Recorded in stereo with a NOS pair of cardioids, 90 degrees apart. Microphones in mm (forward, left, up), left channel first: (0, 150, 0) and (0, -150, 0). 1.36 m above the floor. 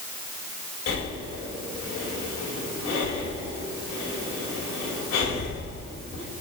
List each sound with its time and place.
0.9 s breathing: 60° left, 3.5 m